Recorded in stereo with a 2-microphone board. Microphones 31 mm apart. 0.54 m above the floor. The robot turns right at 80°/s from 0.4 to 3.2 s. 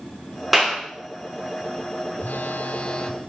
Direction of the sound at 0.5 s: 5° right (ahead or behind).